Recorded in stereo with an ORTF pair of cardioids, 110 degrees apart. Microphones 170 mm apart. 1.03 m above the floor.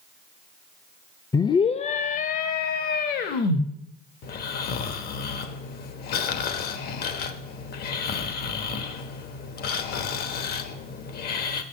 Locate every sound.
1.3 s a scream: 20° left, 0.6 m; by 3.6 s 75° left, 1.5 m
4.2 s snoring: 65° left, 1.1 m